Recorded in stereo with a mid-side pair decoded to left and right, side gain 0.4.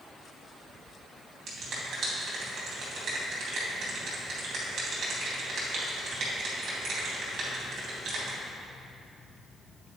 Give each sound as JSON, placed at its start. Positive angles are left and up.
{"t": 1.5, "sound": "a finger snap", "azimuth_deg": -65, "distance_m": 2.0}